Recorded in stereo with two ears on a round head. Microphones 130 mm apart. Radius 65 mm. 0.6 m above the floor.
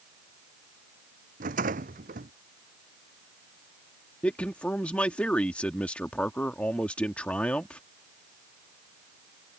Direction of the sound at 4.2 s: 10° left (ahead or behind).